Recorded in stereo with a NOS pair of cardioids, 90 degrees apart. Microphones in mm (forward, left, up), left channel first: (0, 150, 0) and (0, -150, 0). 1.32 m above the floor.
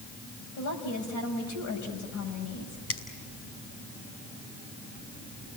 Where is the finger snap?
50° left, 5.5 m.